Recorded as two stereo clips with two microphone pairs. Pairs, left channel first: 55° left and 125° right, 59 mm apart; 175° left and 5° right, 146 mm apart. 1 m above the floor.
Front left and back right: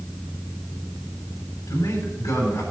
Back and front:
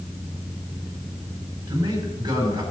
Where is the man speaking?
50° left, 4 m.